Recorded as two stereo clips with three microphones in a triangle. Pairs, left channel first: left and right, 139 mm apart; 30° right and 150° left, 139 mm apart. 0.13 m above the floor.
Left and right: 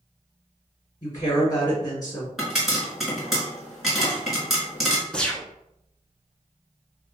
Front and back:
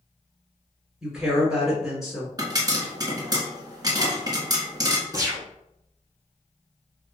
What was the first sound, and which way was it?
A woman speaking, 65° left.